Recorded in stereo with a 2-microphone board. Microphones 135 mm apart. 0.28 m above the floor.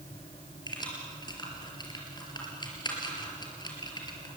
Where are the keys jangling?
30° left (ahead or behind), 4 m.